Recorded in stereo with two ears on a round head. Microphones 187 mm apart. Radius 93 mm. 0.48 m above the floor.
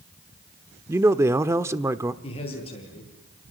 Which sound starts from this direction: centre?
A man speaking, at 0.9 s.